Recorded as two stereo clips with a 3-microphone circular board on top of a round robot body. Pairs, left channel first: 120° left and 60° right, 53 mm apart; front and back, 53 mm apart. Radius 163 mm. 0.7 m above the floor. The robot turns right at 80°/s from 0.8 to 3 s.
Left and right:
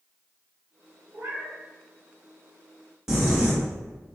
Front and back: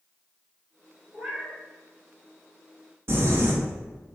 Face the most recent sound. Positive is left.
turn(degrees=-140)